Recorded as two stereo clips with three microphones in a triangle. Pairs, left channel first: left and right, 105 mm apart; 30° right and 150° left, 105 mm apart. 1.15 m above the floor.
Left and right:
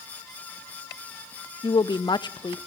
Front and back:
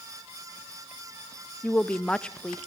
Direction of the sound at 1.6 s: 50° left.